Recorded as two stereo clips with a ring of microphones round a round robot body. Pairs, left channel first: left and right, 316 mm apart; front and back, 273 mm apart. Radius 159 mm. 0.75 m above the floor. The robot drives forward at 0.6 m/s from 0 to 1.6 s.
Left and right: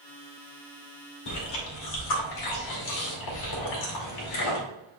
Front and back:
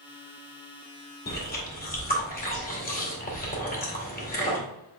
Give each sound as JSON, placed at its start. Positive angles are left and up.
{"t": 1.3, "sound": "chewing", "azimuth_deg": 55, "distance_m": 2.5}